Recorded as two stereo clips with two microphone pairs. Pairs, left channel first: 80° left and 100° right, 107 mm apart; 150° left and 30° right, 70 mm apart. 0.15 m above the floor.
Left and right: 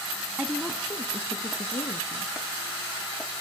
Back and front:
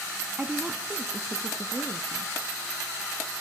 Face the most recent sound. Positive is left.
turn(degrees=60)